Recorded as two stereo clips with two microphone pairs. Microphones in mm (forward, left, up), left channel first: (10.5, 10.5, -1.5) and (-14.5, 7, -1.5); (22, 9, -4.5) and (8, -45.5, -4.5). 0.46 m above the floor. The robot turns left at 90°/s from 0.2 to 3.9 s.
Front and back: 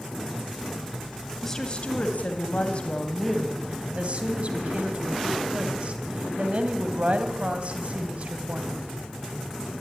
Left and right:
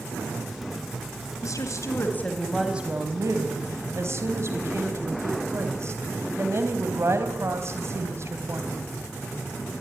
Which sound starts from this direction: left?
A woman speaking, at 1.4 s.